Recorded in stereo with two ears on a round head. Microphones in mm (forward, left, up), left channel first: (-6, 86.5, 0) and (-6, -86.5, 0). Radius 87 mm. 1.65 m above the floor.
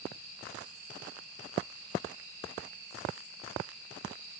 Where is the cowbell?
I don't hear a cowbell.